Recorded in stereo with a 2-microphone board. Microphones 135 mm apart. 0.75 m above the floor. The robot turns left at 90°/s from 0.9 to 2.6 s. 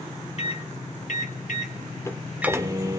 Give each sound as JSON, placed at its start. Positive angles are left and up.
{"t": 0.4, "sound": "a microwave", "azimuth_deg": 125, "distance_m": 1.5}